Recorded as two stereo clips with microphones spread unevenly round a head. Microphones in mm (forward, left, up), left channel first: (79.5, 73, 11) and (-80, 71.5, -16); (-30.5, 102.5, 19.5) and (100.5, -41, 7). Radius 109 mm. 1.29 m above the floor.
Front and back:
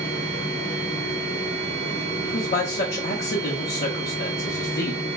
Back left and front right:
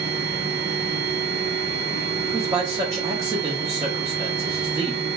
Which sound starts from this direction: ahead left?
A man speaking, at 2.2 s.